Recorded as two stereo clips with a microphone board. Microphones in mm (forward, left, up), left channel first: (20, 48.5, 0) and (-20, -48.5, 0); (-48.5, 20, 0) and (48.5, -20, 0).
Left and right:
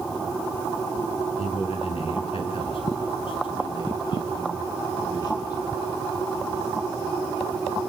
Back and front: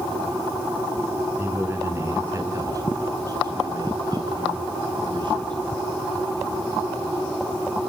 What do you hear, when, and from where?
1.4 s a man speaking: 45° left, 6.5 m; by 5.6 s 20° left, 8.5 m